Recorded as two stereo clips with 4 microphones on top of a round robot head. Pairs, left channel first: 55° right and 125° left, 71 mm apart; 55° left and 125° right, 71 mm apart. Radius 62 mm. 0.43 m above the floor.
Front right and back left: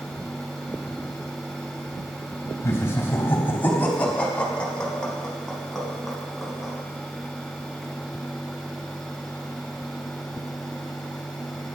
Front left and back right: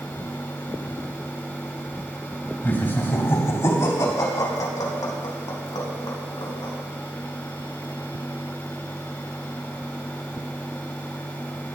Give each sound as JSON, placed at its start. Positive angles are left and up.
{"t": 2.6, "sound": "laughter", "azimuth_deg": -5, "distance_m": 3.5}